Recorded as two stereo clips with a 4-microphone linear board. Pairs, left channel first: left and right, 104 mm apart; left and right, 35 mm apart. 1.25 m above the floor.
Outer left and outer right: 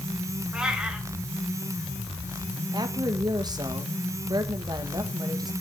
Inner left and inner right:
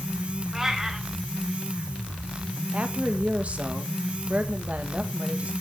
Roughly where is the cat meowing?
Centre.